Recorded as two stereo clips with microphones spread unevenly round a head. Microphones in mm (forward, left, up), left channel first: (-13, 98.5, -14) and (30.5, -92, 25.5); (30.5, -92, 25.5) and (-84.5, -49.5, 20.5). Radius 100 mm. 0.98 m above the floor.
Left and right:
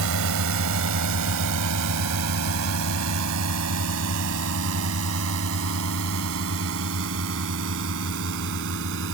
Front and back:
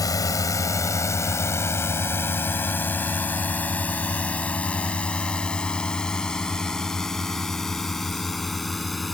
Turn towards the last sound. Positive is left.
turn(degrees=-110)